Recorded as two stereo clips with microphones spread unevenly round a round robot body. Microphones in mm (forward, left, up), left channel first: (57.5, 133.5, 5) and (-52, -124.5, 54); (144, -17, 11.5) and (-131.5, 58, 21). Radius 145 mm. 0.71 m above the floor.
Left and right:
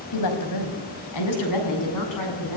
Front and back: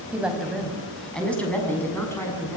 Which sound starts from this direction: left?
A woman speaking, at 0.1 s.